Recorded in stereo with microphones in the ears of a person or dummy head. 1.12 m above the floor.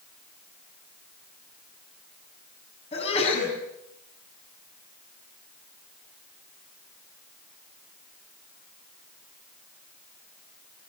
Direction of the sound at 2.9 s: 40° left (ahead or behind).